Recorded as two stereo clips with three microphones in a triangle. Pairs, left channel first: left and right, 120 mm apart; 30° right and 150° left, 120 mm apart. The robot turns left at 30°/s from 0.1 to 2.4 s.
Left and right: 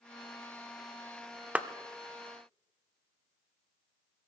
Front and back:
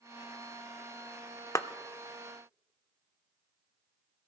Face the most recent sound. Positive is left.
turn(degrees=-50)